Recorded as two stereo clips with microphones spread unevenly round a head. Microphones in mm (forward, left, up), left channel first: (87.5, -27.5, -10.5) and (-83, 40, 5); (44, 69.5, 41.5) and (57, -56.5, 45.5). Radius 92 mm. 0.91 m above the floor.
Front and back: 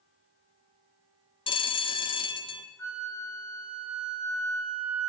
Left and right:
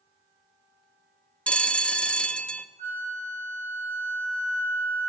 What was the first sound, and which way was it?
A bell, 20° left.